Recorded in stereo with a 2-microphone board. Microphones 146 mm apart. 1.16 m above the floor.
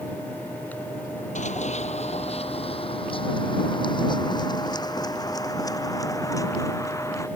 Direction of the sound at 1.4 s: 50° left (ahead or behind).